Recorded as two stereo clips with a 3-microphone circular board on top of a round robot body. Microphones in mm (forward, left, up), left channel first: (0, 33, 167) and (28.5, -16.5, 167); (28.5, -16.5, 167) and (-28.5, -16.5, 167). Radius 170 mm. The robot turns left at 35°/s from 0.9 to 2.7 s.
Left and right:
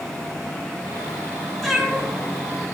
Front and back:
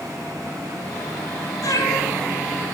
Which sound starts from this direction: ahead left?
A cat meowing, at 1.6 s.